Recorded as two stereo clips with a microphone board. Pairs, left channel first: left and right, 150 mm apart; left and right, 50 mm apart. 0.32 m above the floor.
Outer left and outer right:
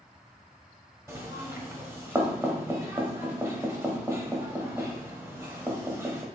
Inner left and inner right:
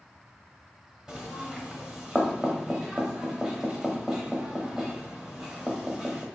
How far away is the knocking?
About 0.8 m.